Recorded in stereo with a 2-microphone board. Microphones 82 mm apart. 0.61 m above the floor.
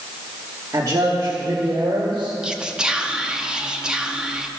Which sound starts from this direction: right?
A man speaking, at 0.7 s.